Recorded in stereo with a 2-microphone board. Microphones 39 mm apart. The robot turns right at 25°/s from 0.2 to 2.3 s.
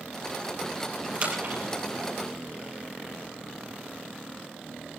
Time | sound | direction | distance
1.1 | a splash | 40° right (ahead or behind) | 5 m